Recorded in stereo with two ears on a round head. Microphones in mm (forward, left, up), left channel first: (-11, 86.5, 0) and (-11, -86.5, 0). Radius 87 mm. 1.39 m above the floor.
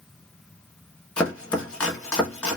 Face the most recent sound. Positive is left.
turn(degrees=5)  # may be behind; listen again after turning